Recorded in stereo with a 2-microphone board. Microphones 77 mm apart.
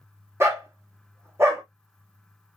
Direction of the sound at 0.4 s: 35° right (ahead or behind).